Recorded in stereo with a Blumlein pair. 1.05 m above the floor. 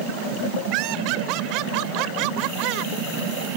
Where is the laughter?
40° right.